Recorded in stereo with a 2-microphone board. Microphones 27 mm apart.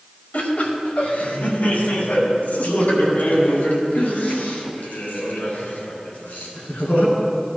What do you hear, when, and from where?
0.3 s laughter: 65° left (ahead or behind), 2.5 m; by 7.1 s 80° left, 6 m